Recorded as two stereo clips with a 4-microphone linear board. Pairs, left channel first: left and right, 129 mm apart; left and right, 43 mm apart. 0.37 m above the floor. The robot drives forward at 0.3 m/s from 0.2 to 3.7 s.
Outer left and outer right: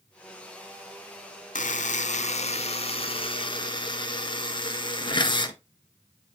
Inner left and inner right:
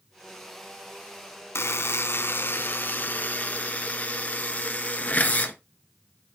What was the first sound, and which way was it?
A buzzer, 75° left (ahead or behind).